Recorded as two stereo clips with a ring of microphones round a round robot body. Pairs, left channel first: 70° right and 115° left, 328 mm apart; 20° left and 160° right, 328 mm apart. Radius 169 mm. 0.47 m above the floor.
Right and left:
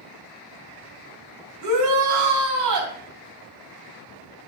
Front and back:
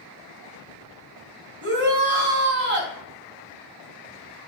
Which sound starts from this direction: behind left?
A shout, at 1.6 s.